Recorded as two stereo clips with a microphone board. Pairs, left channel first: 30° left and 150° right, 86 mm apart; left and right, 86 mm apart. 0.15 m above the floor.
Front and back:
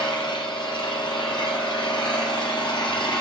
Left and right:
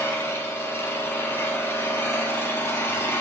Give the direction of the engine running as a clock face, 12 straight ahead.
11 o'clock.